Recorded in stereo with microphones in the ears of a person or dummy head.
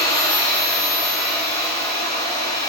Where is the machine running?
15° left (ahead or behind), 1.5 m.